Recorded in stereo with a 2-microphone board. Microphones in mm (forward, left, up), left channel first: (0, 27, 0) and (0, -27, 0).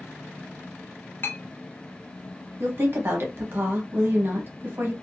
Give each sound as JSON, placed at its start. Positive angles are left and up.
{"t": 1.2, "sound": "a clink", "side_deg": 40, "distance_m": 0.7}
{"t": 2.6, "sound": "a woman speaking", "side_deg": -40, "distance_m": 0.9}